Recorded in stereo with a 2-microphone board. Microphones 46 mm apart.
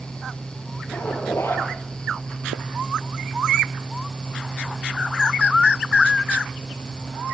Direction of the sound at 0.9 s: 80° left.